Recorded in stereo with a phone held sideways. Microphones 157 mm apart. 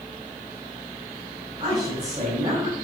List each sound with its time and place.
1.6 s a woman speaking: 30° right (ahead or behind), 5.5 m